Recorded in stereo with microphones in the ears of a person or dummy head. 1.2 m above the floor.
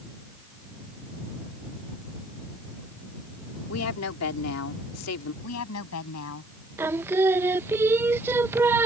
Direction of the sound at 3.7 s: 85° left.